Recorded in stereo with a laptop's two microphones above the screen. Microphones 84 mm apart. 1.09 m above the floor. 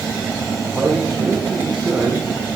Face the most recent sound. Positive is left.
turn(degrees=-10)  # may be behind; listen again after turning